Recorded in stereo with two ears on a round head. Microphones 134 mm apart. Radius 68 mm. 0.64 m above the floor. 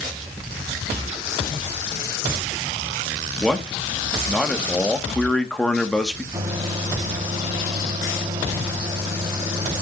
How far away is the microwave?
About 3 m.